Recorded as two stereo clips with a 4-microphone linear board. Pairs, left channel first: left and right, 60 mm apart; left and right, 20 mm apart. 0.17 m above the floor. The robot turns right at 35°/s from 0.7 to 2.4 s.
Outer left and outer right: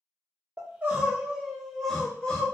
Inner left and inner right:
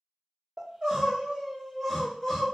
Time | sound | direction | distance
0.6 | crying | 35° right | 0.9 m